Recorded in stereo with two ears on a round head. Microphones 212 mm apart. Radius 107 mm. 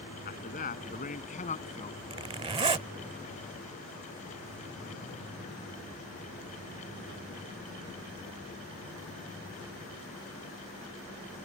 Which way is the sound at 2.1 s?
25° right (ahead or behind).